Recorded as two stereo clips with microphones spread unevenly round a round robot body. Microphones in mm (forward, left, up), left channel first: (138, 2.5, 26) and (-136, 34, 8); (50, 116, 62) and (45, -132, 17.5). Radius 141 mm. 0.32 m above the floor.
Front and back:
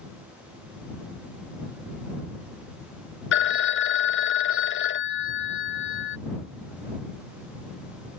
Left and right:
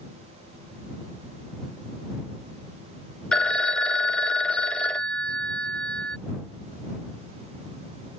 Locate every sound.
3.3 s a phone ringing: 10° right